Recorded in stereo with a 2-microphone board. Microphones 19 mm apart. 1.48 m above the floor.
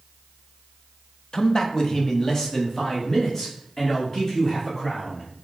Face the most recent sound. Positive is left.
turn(degrees=30)  # may be behind; listen again after turning